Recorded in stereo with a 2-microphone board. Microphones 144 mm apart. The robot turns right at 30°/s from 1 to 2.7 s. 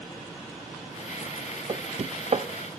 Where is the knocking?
40° right (ahead or behind), 0.6 m; by 2.5 s 50° right (ahead or behind), 0.6 m.